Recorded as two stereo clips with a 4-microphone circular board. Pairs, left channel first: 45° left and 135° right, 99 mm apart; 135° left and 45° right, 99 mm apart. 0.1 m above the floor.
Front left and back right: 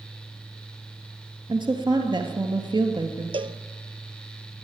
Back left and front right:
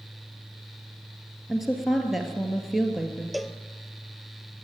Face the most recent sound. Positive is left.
turn(degrees=-135)